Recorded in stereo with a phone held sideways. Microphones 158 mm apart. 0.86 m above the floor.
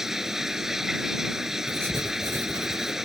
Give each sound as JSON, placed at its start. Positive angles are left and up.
{"t": 0.0, "sound": "running water", "side_deg": -5}
{"t": 1.7, "sound": "writing", "side_deg": -15}